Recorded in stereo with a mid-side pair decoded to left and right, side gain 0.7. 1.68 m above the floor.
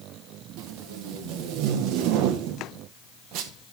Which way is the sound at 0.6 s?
65° right.